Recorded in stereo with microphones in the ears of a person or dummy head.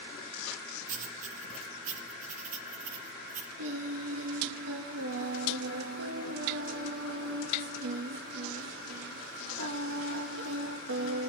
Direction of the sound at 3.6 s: 75° right (ahead or behind).